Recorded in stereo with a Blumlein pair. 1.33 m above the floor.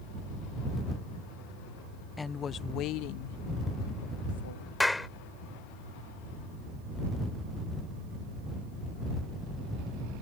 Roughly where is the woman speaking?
Ahead.